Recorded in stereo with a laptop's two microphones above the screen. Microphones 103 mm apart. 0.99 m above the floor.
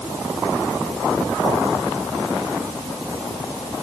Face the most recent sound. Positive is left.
No sound to turn to.